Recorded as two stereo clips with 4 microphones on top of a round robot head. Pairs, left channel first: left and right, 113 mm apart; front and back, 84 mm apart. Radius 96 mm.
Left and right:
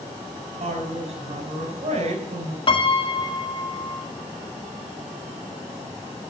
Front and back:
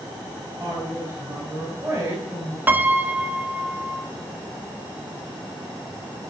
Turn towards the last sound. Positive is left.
turn(degrees=120)